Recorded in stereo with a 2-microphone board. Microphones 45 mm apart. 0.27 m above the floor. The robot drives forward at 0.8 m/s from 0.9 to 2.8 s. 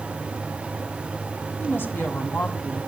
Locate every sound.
1.6 s a woman speaking: 55° left (ahead or behind), 2.0 m; by 2.8 s 45° left (ahead or behind), 2.5 m